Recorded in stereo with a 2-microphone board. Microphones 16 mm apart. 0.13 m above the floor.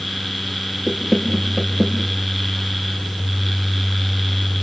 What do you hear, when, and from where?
0.9 s knocking: 5° right (ahead or behind), 4.5 m